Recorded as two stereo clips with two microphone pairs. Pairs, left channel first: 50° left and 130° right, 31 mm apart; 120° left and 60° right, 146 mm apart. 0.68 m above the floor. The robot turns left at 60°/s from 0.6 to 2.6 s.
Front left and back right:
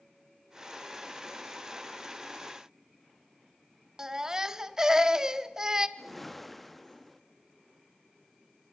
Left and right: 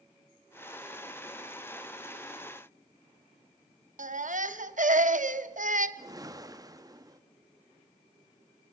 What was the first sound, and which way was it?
A baby crying, 65° right.